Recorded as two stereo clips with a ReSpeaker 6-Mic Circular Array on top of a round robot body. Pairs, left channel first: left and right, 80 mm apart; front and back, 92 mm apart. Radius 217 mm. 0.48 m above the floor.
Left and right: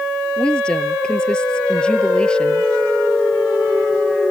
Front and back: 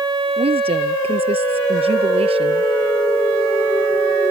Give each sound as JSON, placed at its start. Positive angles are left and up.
{"t": 0.4, "sound": "a woman speaking", "azimuth_deg": 170}